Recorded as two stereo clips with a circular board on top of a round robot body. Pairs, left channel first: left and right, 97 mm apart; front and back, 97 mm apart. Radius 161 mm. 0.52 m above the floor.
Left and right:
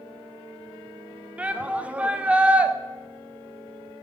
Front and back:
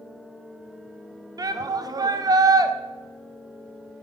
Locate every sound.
1.4 s a shout: 160° right, 1.0 m